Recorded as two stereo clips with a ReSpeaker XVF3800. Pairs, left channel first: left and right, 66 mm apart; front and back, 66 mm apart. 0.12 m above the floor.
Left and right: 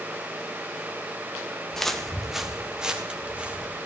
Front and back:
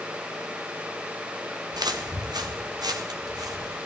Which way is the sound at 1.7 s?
175° left.